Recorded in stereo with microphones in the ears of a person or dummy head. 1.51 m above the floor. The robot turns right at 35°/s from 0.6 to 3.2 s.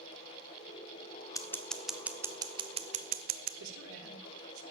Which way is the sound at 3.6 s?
80° right.